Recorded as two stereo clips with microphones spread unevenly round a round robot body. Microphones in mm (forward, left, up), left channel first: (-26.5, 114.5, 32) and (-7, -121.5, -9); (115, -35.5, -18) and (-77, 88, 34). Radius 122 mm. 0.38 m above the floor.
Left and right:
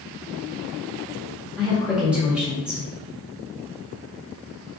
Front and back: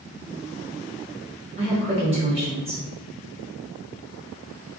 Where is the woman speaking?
150° right, 1.4 m.